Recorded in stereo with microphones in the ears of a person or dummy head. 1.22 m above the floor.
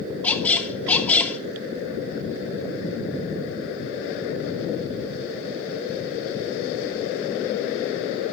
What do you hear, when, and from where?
0.2 s a squeak: 5° left (ahead or behind), 0.9 m